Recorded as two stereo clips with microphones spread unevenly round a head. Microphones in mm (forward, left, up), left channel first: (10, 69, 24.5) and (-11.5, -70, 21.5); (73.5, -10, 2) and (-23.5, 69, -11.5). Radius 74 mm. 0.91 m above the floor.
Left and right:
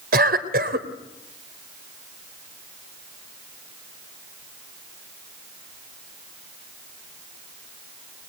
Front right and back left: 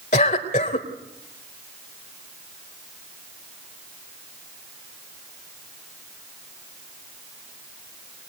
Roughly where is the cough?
Right.